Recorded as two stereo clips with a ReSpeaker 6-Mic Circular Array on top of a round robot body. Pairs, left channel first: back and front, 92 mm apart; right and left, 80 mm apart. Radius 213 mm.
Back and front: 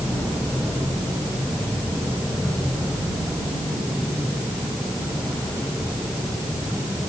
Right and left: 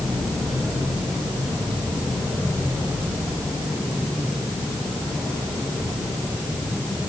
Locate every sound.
Only background noise.